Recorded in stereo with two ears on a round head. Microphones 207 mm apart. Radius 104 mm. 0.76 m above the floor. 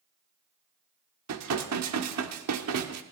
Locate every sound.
1.3 s dishes clattering: 80° right, 1.3 m